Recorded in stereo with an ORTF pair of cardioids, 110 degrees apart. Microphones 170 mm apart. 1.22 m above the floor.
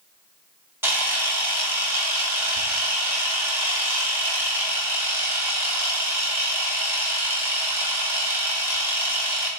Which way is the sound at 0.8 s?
15° right.